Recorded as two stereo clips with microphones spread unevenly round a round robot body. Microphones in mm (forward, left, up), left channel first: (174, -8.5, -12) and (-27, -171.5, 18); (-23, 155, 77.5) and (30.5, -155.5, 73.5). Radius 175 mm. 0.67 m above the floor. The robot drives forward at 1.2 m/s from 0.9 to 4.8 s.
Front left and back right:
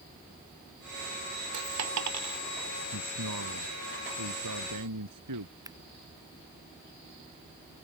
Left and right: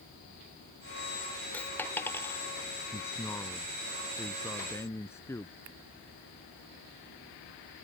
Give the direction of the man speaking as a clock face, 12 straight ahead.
6 o'clock.